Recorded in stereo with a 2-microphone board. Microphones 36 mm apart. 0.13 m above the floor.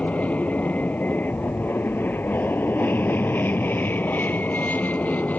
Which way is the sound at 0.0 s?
40° left (ahead or behind).